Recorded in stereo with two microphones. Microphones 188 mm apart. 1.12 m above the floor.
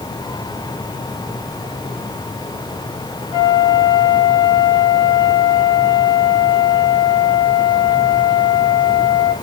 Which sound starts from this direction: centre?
A flute, at 3.3 s.